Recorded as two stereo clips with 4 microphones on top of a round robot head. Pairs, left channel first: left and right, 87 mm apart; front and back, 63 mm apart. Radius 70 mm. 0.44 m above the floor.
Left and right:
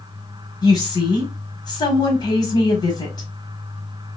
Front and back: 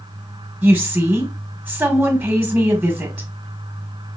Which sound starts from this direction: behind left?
A woman speaking, at 0.6 s.